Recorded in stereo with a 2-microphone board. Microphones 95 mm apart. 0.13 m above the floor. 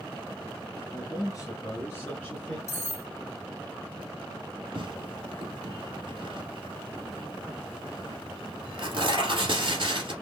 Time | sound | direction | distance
0.9 | a man speaking | 40° left (ahead or behind) | 2.0 m
2.7 | cutlery clinking | 30° left (ahead or behind) | 1.2 m
4.8 | tearing paper | 60° right (ahead or behind) | 1.8 m